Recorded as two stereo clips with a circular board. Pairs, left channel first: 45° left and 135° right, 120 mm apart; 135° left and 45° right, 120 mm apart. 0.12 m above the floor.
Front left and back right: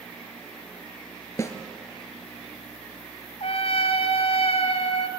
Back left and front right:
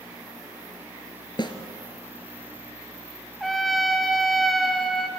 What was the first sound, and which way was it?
A snare drum, 100° left.